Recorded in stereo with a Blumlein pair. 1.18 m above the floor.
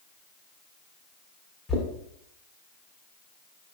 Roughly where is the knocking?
Ahead.